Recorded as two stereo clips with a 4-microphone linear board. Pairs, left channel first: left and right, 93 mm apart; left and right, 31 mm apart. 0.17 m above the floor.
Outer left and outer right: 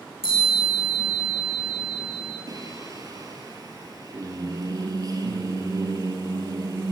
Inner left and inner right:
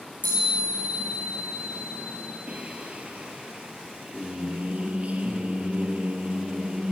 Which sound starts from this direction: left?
A chime, at 0.2 s.